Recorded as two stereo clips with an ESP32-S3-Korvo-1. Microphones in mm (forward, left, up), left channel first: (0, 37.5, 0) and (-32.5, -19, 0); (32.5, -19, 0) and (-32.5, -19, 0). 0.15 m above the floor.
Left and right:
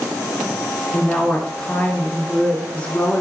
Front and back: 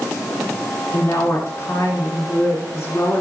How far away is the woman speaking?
About 1.9 m.